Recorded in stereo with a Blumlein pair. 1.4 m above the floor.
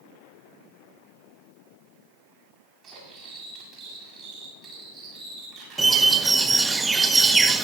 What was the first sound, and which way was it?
Cutlery clinking, 25° right.